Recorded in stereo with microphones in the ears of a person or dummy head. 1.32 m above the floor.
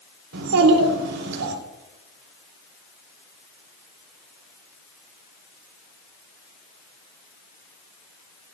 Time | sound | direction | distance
0.3 | a child speaking | 85° right | 3 m